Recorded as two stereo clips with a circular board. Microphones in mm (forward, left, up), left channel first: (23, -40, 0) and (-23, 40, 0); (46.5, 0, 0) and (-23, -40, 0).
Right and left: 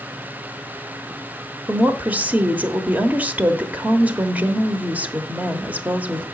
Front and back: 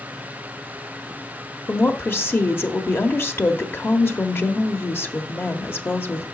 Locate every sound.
1.7 s a woman speaking: 65° left, 0.9 m